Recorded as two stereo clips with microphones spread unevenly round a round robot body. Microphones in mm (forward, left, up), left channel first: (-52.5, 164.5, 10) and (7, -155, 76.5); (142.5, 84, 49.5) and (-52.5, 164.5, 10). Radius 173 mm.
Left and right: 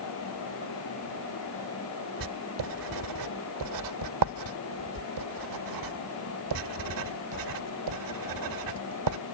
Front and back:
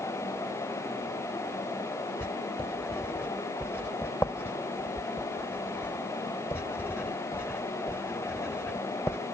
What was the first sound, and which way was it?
Writing, 110° right.